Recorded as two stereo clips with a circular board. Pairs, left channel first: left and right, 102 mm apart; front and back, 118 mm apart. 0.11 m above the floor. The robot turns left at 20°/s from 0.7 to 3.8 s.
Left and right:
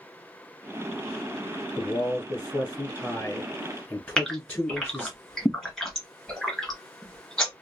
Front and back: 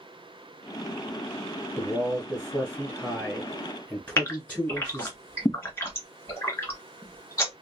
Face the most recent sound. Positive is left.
turn(degrees=5)